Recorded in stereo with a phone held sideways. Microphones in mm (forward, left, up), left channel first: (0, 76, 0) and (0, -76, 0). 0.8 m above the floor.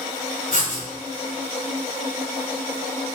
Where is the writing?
60° left (ahead or behind), 1.8 m.